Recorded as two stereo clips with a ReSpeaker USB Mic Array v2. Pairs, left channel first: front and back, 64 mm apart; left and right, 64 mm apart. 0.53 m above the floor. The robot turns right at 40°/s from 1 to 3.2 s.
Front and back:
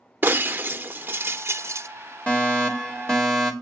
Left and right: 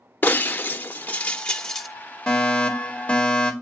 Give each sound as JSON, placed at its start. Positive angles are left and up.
{"t": 0.2, "sound": "breaking glass", "azimuth_deg": 140, "distance_m": 0.6}
{"t": 2.3, "sound": "a fire alarm", "azimuth_deg": 35, "distance_m": 2.0}